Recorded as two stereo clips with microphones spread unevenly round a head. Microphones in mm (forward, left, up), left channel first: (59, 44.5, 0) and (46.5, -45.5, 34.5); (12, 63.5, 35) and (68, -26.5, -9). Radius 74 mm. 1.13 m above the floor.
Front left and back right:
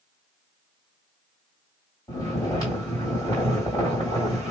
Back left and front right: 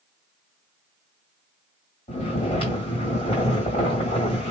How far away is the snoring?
About 2.0 m.